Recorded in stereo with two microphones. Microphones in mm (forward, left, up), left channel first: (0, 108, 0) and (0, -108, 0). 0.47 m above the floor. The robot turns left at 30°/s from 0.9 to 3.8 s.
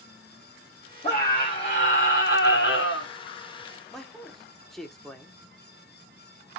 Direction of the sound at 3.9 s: Centre (ahead or behind).